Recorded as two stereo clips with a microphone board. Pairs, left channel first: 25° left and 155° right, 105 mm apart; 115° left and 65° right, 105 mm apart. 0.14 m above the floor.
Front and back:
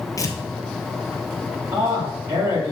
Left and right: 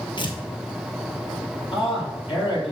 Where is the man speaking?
140° left, 4.5 m.